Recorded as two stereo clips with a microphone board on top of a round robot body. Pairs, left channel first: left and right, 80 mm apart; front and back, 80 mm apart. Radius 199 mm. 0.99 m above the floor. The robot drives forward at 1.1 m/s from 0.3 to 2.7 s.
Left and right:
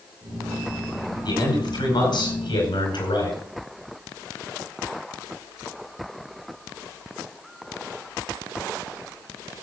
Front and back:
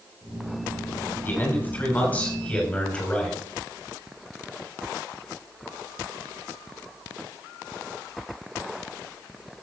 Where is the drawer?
I don't hear a drawer.